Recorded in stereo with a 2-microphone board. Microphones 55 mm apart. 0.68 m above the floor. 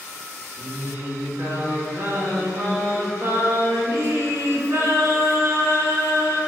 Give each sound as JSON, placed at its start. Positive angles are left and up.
{"t": 0.6, "sound": "singing", "side_deg": -50, "distance_m": 2.0}